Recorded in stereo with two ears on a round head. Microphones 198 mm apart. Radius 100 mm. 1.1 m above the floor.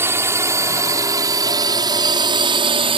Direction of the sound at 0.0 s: 10° right (ahead or behind).